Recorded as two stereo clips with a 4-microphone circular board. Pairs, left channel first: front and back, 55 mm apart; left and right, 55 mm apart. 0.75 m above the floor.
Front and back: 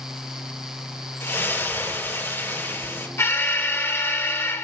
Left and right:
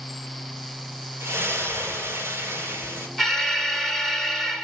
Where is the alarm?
5° left, 1.9 m.